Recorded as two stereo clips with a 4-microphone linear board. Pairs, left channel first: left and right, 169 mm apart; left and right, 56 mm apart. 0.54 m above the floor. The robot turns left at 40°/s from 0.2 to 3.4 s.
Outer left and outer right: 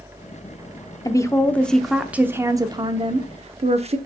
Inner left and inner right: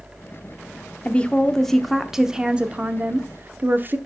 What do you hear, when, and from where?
1.1 s a woman speaking: 35° left, 0.8 m; by 4.0 s 60° right, 0.8 m